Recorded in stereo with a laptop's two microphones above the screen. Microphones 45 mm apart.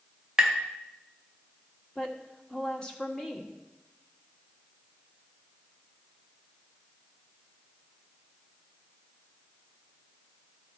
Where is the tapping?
15° right (ahead or behind), 0.9 m.